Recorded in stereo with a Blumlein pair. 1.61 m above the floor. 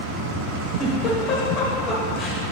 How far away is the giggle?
About 1.4 m.